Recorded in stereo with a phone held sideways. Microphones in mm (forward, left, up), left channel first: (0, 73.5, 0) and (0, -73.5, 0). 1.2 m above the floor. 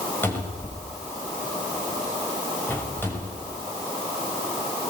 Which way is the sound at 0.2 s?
15° left (ahead or behind).